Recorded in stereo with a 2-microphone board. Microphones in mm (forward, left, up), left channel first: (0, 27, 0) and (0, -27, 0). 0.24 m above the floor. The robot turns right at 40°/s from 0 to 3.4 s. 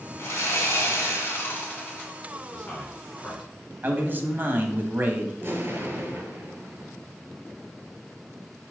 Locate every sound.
0.2 s sawing: 75° left, 2.5 m; by 2.1 s 150° left, 2.5 m
2.5 s a man speaking: 35° left (ahead or behind), 3 m; by 3.5 s 5° left (ahead or behind), 3 m
3.8 s a man speaking: 35° right (ahead or behind), 1.2 m
5.4 s an explosion: 40° right (ahead or behind), 1.8 m